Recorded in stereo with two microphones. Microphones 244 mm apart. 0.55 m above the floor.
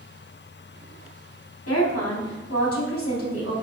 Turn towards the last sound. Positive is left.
turn(degrees=75)  # may be behind; listen again after turning